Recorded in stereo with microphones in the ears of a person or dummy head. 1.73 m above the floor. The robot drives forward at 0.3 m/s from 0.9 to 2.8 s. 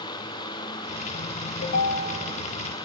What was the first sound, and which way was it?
A ringtone, 70° left (ahead or behind).